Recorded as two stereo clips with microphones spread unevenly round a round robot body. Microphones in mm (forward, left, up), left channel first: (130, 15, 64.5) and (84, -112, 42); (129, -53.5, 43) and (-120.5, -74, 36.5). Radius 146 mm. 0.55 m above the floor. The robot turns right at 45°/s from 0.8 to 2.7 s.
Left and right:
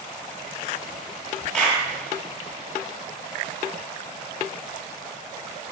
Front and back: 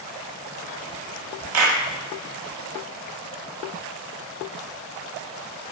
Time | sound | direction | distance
1.5 | a clap | 160° left | 1.2 m